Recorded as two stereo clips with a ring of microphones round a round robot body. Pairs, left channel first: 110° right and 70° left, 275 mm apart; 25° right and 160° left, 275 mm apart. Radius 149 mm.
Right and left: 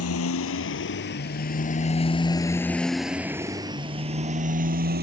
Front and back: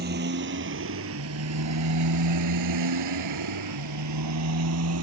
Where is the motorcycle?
150° right; by 5.0 s 125° left.